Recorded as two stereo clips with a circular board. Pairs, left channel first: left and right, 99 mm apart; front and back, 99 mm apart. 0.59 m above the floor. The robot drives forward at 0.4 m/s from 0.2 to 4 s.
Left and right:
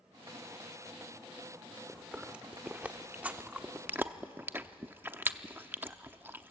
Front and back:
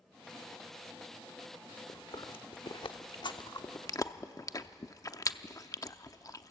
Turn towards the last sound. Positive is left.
turn(degrees=-30)